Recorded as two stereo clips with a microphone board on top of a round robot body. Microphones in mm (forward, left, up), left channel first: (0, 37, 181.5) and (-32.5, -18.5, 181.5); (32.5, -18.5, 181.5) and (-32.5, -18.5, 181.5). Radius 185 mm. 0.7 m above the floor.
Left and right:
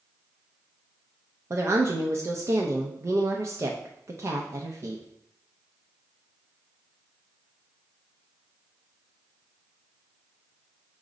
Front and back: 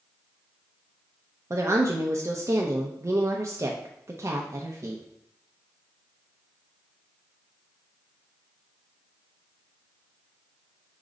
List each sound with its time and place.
1.5 s a woman speaking: 155° right, 0.7 m